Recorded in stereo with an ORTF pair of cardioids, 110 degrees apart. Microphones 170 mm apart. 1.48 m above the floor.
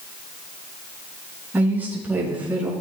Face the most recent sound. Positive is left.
turn(degrees=-10)